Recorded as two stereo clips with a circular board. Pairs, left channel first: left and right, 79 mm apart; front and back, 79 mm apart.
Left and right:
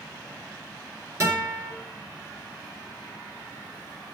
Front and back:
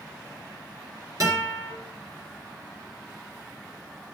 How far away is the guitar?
About 4.5 m.